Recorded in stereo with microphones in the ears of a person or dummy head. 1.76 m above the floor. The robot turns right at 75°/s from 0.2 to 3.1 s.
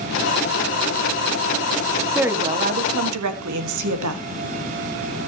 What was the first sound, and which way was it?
A woman speaking, straight behind.